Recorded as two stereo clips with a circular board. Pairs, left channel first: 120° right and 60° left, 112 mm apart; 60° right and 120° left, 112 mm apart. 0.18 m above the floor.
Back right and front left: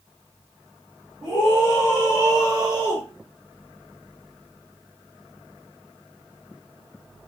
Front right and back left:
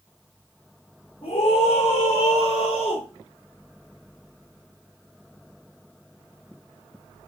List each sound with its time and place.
1.2 s a scream: 20° right, 7 m